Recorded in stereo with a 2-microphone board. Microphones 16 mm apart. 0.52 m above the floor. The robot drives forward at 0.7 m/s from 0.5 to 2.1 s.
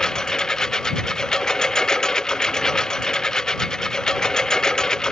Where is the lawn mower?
40° left (ahead or behind).